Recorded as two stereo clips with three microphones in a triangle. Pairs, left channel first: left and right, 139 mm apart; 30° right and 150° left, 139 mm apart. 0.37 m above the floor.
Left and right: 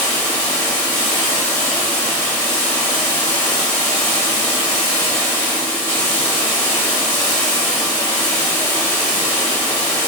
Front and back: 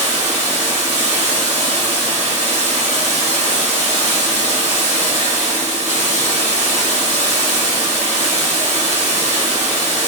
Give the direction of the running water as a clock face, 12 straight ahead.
7 o'clock.